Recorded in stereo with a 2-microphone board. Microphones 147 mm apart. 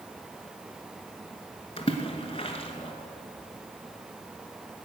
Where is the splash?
40° left (ahead or behind), 1.2 m.